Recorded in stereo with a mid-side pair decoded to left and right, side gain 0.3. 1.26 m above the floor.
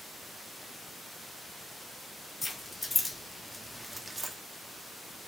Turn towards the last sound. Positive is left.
turn(degrees=-35)